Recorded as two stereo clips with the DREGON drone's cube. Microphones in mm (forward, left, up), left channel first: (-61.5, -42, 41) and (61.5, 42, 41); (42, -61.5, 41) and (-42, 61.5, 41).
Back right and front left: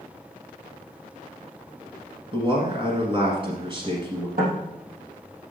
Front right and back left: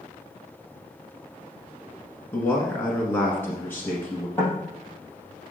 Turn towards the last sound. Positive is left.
turn(degrees=20)